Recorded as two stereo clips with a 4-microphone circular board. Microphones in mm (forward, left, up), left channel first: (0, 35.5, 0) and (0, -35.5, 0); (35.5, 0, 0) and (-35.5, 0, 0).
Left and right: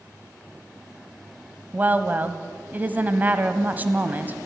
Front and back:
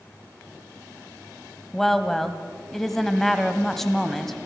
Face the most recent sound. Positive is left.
turn(degrees=-85)